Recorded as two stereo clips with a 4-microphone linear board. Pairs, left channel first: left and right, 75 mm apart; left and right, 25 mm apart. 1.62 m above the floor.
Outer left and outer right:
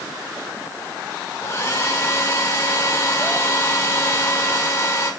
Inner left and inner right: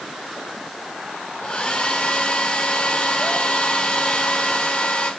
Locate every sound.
1.4 s a hair dryer: 40° left (ahead or behind), 6.5 m